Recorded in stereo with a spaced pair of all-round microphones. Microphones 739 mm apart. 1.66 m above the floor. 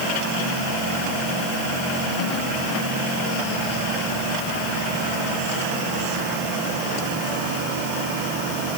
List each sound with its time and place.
Only background noise.